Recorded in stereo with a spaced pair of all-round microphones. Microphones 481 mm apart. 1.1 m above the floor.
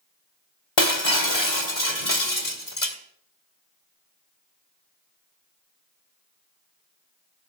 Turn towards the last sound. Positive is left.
turn(degrees=65)  # may be behind; listen again after turning